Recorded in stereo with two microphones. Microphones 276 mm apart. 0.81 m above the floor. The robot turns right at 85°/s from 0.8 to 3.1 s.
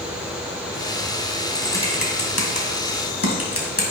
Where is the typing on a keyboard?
5° right (ahead or behind), 2.5 m; by 3.8 s 55° left (ahead or behind), 2.5 m.